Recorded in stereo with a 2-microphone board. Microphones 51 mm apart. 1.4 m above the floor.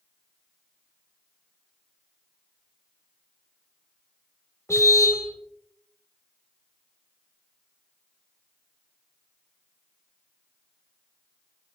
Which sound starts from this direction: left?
A car horn, at 4.7 s.